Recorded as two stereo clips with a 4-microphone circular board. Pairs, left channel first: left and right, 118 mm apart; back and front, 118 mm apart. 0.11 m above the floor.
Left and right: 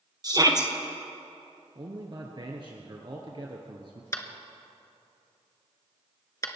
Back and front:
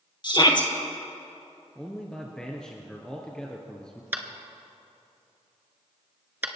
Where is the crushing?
No crushing in this recording.